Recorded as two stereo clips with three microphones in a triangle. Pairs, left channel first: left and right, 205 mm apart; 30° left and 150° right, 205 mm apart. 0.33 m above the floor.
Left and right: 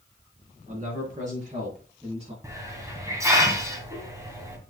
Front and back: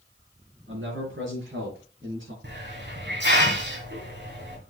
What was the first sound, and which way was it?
A man speaking, 140° right.